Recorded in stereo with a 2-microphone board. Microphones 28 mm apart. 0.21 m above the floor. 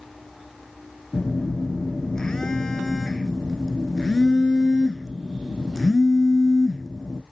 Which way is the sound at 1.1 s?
30° left (ahead or behind).